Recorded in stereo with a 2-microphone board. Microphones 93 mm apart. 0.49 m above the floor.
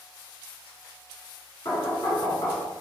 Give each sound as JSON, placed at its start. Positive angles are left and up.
{"t": 1.6, "sound": "knocking", "side_deg": 45, "distance_m": 1.2}